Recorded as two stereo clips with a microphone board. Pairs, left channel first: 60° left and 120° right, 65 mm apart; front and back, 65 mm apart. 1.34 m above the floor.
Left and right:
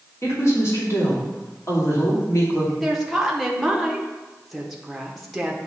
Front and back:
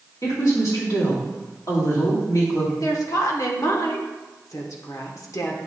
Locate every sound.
0.2 s a woman speaking: 20° left, 2.5 m
2.8 s a woman speaking: 30° right, 1.1 m